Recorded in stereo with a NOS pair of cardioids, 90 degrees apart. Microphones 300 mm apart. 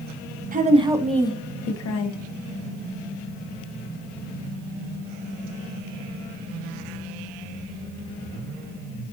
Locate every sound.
0.5 s a woman speaking: 30° right, 0.8 m; by 2.2 s 75° left, 0.8 m